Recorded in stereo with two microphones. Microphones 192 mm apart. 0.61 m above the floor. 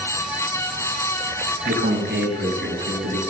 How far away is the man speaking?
About 4 m.